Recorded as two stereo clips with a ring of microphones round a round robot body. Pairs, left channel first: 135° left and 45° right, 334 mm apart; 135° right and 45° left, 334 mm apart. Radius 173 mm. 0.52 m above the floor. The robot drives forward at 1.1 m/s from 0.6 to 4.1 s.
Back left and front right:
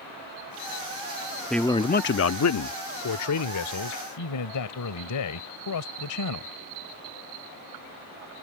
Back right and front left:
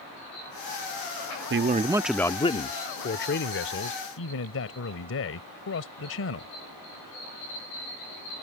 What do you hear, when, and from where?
1.5 s a man speaking: 45° left; by 6.5 s 170° left